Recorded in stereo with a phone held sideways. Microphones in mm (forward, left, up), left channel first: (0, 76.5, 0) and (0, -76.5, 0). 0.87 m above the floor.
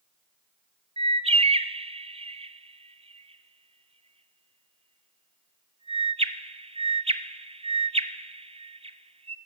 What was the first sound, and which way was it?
A bird, 40° right (ahead or behind).